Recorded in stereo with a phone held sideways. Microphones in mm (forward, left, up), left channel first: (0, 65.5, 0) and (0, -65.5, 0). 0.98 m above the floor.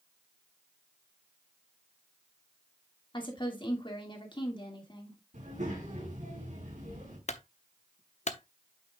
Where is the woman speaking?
35° left (ahead or behind), 2.5 m.